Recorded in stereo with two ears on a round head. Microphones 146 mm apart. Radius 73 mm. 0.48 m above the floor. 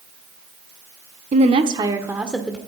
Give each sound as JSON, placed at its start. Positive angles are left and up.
{"t": 1.3, "sound": "a woman speaking", "side_deg": -45, "distance_m": 1.3}